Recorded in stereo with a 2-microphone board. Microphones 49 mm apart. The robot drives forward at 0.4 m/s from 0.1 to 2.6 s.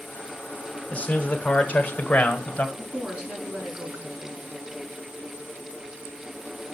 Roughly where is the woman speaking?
Right.